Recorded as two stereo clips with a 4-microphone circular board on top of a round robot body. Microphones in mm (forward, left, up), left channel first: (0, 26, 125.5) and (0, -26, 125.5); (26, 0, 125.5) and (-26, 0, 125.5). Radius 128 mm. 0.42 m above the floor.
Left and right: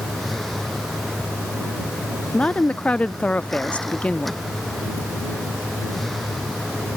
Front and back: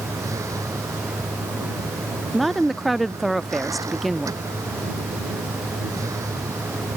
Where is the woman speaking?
90° left.